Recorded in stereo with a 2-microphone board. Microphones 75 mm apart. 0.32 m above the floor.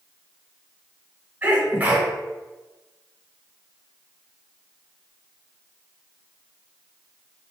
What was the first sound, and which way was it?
A sneeze, 25° right (ahead or behind).